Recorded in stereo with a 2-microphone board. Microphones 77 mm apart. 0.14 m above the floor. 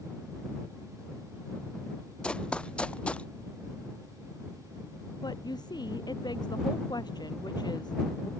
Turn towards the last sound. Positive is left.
turn(degrees=65)  # may be behind; listen again after turning